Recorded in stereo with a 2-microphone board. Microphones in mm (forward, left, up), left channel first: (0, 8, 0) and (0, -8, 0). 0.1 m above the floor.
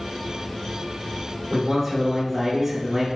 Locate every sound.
1.5 s a man speaking: centre (ahead or behind), 1.2 m